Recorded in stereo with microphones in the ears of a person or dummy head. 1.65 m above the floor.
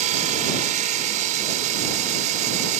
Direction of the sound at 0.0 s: 40° right (ahead or behind).